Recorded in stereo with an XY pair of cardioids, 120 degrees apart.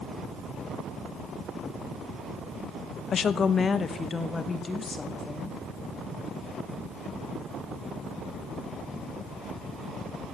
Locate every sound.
3.1 s a woman speaking: 45° left, 0.8 m; by 5.6 s 25° left, 2.5 m